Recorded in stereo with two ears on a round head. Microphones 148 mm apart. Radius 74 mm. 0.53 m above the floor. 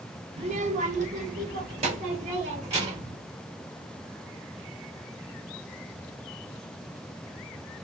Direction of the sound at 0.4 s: 35° right (ahead or behind).